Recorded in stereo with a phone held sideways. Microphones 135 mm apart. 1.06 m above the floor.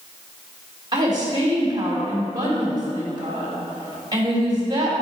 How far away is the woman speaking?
About 3.5 m.